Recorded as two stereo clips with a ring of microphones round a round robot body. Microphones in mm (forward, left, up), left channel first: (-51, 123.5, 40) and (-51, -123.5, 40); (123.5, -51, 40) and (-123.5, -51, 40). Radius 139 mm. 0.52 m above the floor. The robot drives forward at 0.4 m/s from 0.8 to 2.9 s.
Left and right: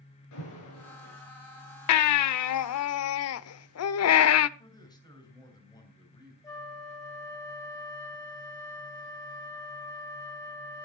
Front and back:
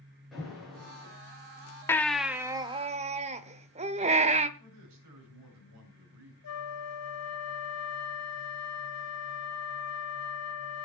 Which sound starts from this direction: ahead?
A flute, at 6.4 s.